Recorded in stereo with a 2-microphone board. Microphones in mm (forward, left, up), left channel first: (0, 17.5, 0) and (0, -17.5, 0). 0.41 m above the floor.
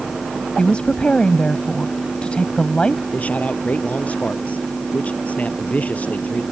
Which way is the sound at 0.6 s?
30° left (ahead or behind).